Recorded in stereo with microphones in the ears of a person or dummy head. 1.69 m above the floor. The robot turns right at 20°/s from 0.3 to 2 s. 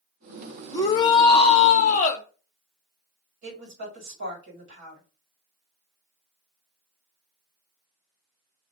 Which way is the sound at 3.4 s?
60° right (ahead or behind).